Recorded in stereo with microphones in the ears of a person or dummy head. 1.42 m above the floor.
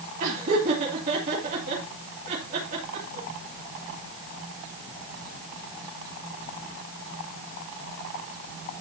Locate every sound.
0.2 s laughter: 40° right (ahead or behind), 2.5 m